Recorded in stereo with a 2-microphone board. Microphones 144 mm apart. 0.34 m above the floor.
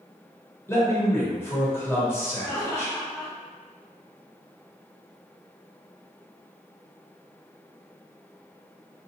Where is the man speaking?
15° left (ahead or behind), 0.9 m.